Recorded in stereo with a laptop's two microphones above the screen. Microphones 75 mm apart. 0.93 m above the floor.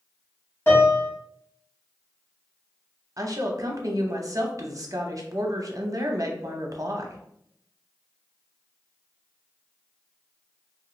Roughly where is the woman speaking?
Right.